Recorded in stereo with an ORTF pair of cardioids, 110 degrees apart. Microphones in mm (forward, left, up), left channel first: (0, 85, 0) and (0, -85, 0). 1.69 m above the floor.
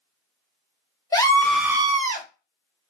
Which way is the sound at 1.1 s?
20° left.